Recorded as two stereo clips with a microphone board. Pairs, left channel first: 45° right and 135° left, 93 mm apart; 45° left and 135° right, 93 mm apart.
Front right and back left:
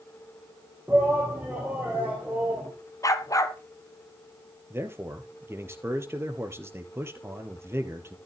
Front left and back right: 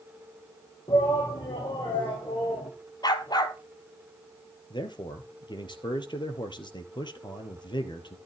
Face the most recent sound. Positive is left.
turn(degrees=75)